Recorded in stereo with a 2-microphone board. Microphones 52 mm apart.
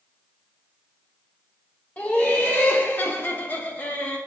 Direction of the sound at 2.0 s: 30° left (ahead or behind).